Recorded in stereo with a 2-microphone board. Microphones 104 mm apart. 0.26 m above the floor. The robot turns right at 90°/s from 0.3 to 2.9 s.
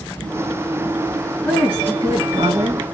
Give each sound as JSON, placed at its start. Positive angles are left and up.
{"t": 1.4, "sound": "a woman speaking", "azimuth_deg": 175, "distance_m": 2.5}